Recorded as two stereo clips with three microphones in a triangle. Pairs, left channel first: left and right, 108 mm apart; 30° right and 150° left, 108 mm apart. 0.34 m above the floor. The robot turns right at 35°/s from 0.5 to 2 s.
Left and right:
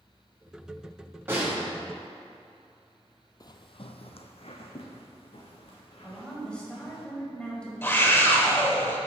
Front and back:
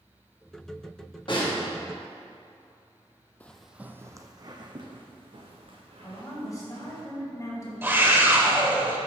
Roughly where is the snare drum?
Ahead right.